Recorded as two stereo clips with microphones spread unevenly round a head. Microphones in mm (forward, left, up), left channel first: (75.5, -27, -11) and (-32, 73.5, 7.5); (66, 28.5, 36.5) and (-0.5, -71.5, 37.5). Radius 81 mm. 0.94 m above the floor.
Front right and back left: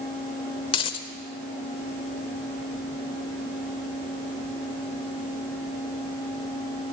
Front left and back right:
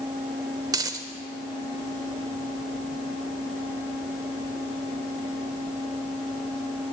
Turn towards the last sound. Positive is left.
turn(degrees=-90)